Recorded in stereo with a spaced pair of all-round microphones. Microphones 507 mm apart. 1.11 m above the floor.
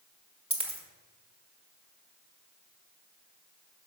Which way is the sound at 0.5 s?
10° right (ahead or behind).